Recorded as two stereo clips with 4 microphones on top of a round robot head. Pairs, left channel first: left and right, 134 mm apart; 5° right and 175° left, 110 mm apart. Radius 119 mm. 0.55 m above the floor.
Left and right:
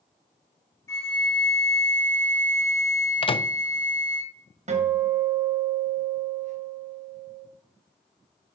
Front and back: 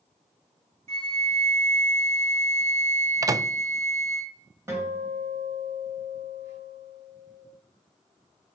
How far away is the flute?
About 4.5 m.